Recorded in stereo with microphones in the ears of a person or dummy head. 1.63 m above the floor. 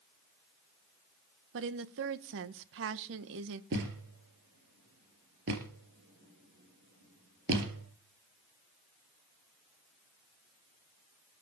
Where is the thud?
60° right (ahead or behind), 3.5 m.